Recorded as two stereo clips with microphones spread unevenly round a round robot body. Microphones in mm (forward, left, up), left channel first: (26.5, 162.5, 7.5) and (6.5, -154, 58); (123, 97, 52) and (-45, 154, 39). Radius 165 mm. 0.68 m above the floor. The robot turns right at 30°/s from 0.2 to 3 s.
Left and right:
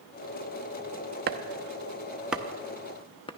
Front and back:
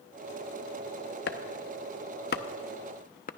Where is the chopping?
35° right, 0.7 m; by 3.3 s 20° left, 0.7 m.